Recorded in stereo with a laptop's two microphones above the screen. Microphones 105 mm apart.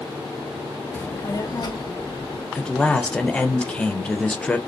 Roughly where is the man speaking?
Centre.